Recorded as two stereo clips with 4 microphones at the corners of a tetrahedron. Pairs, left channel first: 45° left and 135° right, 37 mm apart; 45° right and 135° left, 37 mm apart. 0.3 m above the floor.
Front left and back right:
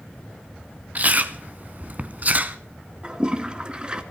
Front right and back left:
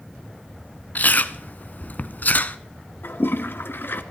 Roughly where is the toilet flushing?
Right.